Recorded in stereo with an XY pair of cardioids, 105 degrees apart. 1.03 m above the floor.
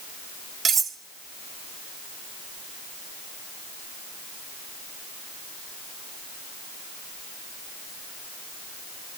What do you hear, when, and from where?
0.7 s cutlery clinking: 45° right, 0.9 m